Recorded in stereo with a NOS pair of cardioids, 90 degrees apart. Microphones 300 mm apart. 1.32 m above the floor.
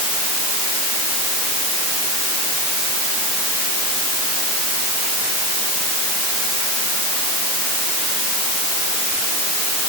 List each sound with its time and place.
Only background noise.